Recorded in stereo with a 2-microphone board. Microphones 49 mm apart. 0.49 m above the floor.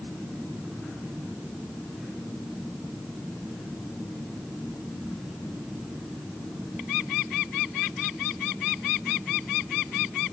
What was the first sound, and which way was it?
Only background noise.